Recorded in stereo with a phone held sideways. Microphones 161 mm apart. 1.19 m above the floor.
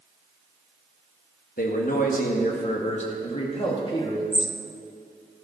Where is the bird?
40° right (ahead or behind), 0.7 m.